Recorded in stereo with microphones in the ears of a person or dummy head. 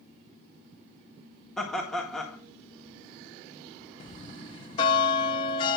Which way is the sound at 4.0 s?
30° left (ahead or behind).